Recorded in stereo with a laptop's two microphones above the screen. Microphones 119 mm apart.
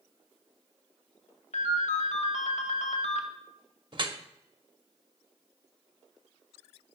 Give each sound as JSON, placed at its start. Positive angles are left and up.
{"t": 1.5, "sound": "a ringtone", "side_deg": 85, "distance_m": 0.8}
{"t": 3.9, "sound": "dripping", "side_deg": -45, "distance_m": 0.7}